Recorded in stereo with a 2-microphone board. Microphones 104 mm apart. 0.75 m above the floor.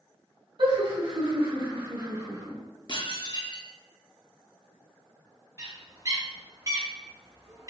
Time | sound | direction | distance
0.6 | laughter | 60° right (ahead or behind) | 1.9 m
2.9 | dishes clattering | 45° left (ahead or behind) | 0.6 m
5.6 | a bird | 35° right (ahead or behind) | 1.0 m